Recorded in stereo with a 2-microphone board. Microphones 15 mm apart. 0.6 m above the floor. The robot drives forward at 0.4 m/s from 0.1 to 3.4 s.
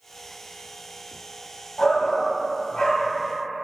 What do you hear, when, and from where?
1.8 s a shout: 60° left (ahead or behind), 3 m; by 3.1 s 70° left (ahead or behind), 3 m